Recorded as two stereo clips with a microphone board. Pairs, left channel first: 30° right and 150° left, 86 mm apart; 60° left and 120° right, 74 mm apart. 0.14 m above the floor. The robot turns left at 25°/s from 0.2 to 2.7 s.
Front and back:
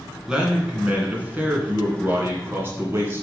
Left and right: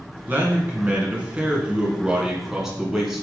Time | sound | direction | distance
0.3 | a man speaking | 140° right | 1.8 m